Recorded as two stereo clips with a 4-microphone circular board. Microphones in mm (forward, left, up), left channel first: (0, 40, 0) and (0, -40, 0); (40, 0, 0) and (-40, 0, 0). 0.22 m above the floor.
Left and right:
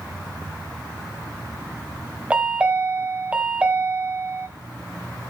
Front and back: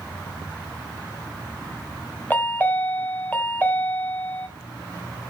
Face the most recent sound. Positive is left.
turn(degrees=-35)